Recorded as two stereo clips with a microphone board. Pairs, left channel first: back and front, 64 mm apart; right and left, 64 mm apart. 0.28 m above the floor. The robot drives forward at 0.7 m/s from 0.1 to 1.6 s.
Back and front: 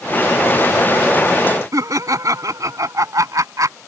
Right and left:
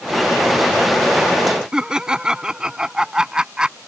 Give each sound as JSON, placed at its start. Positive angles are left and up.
{"t": 1.7, "sound": "laughter", "azimuth_deg": 15}